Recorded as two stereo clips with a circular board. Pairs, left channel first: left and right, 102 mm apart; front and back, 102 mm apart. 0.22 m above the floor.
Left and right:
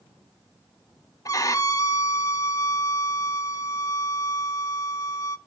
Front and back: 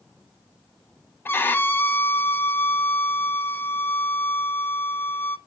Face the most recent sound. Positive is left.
turn(degrees=60)